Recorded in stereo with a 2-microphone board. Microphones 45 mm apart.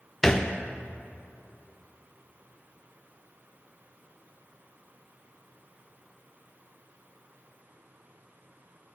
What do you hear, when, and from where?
0.2 s a thud: 5° left (ahead or behind), 1.1 m